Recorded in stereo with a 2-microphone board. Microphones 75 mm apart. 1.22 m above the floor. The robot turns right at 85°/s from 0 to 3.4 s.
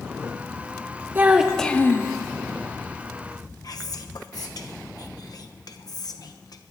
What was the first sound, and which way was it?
A child speaking, 30° right.